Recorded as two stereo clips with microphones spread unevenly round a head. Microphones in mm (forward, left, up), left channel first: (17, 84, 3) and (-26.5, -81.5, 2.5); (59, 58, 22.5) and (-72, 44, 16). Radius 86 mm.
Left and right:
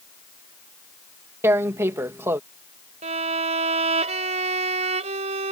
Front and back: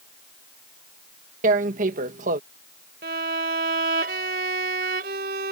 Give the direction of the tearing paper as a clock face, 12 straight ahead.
6 o'clock.